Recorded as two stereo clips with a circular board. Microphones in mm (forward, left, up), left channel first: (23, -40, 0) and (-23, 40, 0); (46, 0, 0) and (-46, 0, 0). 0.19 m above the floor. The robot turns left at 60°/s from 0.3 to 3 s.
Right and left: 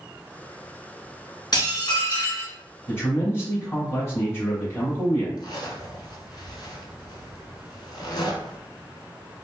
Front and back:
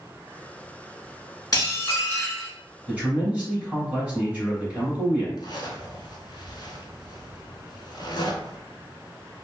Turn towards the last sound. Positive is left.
turn(degrees=-30)